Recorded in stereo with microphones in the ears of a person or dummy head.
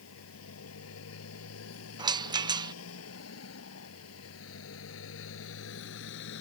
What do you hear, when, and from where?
0.0 s a motorcycle: 85° left; by 6.4 s 70° left (ahead or behind)
2.0 s a rattle: 20° right (ahead or behind)